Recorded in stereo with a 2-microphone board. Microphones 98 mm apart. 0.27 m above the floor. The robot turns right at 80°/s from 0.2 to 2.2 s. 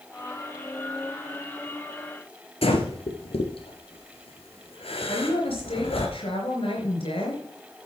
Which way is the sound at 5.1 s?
75° left (ahead or behind).